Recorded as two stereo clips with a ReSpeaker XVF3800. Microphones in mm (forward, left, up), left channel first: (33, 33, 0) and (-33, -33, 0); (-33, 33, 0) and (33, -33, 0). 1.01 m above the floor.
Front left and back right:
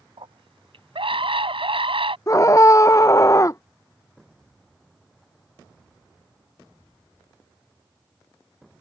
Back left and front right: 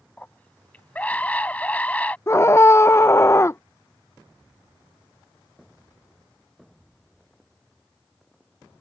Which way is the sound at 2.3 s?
85° left.